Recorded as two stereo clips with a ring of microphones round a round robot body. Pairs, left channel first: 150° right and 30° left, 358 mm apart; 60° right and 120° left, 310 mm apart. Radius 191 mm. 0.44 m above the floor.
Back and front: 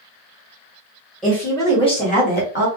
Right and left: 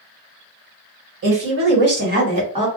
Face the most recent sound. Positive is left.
turn(degrees=-175)